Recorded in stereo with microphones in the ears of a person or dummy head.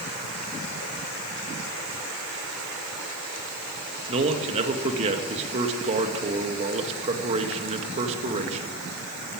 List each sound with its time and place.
4.1 s a man speaking: 35° right (ahead or behind), 2.0 m